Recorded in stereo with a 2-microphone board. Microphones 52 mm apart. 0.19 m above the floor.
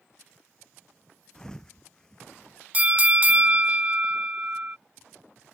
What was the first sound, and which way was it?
A thud, 15° left (ahead or behind).